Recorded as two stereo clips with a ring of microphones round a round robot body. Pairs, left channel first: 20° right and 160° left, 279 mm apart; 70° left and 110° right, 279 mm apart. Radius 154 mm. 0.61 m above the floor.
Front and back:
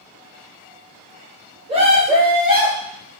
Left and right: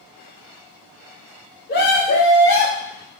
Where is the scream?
100° left, 1.0 m; by 2.9 s 90° left, 1.6 m.